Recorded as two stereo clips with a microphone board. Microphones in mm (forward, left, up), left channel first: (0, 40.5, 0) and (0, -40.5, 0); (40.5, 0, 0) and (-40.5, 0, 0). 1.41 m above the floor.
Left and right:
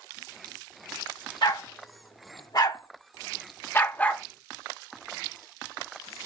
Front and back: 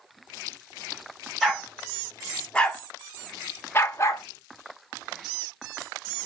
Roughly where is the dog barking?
Left.